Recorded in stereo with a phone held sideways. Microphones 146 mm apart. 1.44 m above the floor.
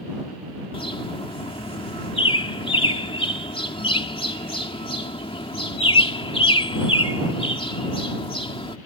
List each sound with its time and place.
0.7 s a bird: 40° left (ahead or behind)